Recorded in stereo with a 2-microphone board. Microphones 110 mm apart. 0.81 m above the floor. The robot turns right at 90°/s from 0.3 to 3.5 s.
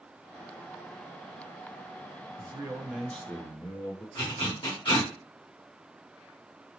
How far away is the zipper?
About 1.7 m.